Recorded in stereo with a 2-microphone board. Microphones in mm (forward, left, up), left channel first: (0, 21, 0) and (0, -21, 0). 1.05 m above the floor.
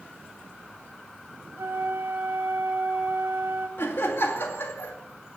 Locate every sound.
1.6 s a flute: 70° right (ahead or behind), 3 m
3.8 s laughter: 65° left (ahead or behind), 2.5 m